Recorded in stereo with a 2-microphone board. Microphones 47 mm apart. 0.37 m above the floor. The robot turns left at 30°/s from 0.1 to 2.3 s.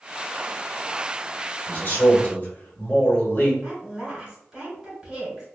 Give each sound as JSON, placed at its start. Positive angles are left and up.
{"t": 1.7, "sound": "a man speaking", "side_deg": 40, "distance_m": 1.4}
{"t": 3.6, "sound": "a woman speaking", "side_deg": -20, "distance_m": 1.9}